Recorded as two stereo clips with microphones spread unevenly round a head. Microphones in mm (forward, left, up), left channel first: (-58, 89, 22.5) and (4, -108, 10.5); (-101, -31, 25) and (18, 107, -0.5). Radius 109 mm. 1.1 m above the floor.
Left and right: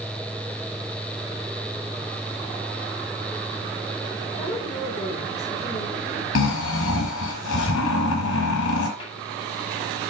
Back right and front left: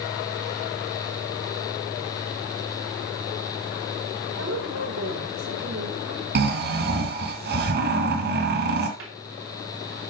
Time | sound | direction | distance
4.4 | a woman speaking | 30° left | 5 m
6.3 | snoring | 75° left | 2.5 m
9.0 | a cupboard door | 40° left | 2.5 m